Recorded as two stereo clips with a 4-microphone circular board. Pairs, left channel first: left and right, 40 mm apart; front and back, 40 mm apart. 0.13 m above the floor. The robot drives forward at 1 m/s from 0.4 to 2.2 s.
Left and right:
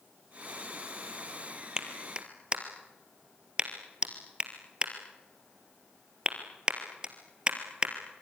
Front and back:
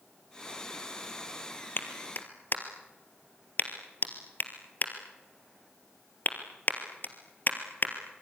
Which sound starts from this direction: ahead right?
A clap, at 1.8 s.